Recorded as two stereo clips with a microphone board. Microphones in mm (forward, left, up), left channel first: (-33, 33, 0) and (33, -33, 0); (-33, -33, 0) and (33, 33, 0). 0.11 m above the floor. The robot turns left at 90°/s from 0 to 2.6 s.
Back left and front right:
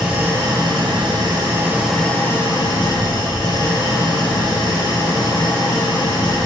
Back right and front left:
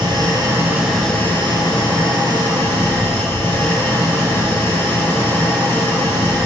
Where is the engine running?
40° left, 1.8 m; by 6.5 s 165° left, 1.8 m.